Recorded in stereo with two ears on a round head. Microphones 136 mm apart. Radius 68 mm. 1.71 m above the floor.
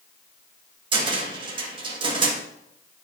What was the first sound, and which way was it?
A cupboard door, 35° right (ahead or behind).